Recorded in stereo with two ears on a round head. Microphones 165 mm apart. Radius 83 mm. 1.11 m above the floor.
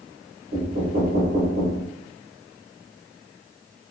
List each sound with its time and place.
0.5 s knocking: 35° right (ahead or behind), 1.7 m